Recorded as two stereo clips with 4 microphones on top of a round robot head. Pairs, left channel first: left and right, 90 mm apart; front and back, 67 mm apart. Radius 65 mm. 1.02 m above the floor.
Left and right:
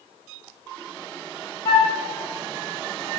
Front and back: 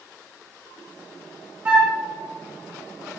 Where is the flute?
120° left, 1.0 m.